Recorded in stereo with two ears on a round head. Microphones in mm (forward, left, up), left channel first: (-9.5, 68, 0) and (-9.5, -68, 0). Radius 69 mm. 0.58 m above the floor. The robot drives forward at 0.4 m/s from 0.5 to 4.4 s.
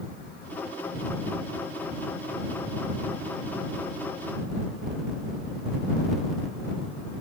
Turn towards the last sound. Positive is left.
No sound to turn to.